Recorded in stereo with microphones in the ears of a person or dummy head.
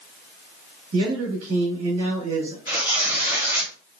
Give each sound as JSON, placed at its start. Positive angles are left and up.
{"t": 0.9, "sound": "a man speaking", "side_deg": -85, "distance_m": 1.5}
{"t": 2.7, "sound": "tearing paper", "side_deg": -20, "distance_m": 1.2}